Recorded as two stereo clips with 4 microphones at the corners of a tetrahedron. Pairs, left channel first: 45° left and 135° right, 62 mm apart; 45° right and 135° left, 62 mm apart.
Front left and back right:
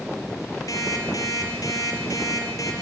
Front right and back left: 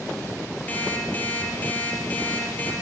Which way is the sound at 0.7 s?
20° left.